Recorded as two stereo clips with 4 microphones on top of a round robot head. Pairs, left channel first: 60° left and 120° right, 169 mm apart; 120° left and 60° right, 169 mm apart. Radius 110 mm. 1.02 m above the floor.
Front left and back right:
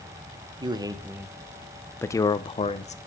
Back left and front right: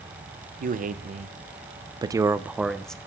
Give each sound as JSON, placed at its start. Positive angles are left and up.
{"t": 0.6, "sound": "a man speaking", "azimuth_deg": -65, "distance_m": 1.2}